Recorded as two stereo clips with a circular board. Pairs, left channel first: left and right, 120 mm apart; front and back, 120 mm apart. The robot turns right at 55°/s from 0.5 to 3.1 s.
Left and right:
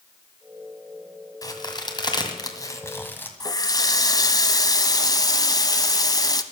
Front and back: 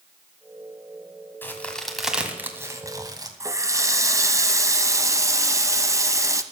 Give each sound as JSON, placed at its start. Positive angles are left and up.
{"t": 1.4, "sound": "a crack", "azimuth_deg": 60, "distance_m": 1.9}
{"t": 3.4, "sound": "a running tap", "azimuth_deg": 130, "distance_m": 0.8}